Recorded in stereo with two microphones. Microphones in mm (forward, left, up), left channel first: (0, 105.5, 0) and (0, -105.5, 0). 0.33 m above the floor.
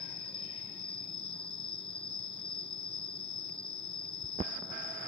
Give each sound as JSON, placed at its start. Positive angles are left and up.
{"t": 0.0, "sound": "an insect", "side_deg": -70}